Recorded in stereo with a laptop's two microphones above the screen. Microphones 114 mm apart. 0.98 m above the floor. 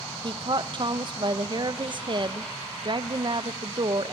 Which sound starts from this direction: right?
A woman speaking, at 0.2 s.